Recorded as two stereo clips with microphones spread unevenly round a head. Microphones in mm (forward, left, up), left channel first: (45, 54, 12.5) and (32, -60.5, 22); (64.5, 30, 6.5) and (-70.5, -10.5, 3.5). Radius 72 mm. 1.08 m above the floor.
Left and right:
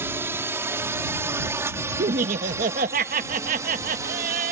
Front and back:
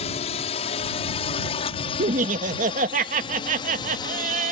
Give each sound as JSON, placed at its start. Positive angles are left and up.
{"t": 0.0, "sound": "a drone", "azimuth_deg": -30}
{"t": 2.0, "sound": "laughter", "azimuth_deg": -125}